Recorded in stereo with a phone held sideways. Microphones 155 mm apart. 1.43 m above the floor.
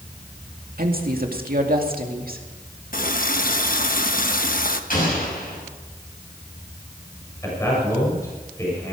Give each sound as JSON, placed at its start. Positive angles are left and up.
{"t": 0.8, "sound": "a woman speaking", "side_deg": -75, "distance_m": 2.0}
{"t": 2.9, "sound": "a running tap", "side_deg": 65, "distance_m": 1.1}
{"t": 4.9, "sound": "an explosion", "side_deg": 65, "distance_m": 6.0}
{"t": 7.4, "sound": "a man speaking", "side_deg": 20, "distance_m": 7.5}